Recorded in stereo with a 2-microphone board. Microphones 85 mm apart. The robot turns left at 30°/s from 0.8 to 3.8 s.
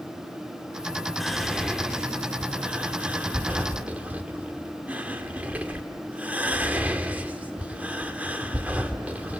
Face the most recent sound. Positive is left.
turn(degrees=-20)  # may be behind; listen again after turning